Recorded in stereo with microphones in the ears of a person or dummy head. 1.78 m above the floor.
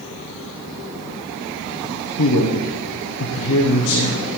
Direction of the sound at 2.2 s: 85° left.